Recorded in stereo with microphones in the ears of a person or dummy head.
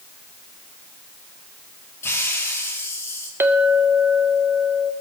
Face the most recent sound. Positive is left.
turn(degrees=-10)  # may be behind; listen again after turning